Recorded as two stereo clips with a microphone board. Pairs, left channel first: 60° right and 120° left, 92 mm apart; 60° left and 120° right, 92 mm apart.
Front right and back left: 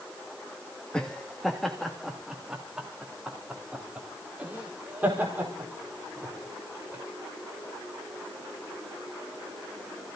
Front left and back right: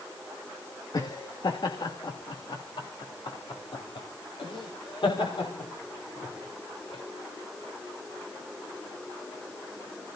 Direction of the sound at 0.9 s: 20° left.